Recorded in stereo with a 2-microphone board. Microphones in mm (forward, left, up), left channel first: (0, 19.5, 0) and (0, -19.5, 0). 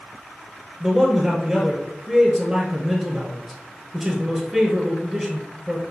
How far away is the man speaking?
About 1.2 m.